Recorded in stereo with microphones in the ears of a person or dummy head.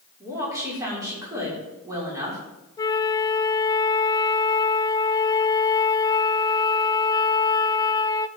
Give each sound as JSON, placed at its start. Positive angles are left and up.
{"t": 0.2, "sound": "a woman speaking", "side_deg": -15, "distance_m": 5.5}
{"t": 2.8, "sound": "a flute", "side_deg": 25, "distance_m": 0.5}